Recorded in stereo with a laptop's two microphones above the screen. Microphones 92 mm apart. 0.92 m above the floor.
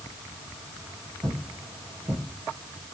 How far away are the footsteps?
About 1.9 m.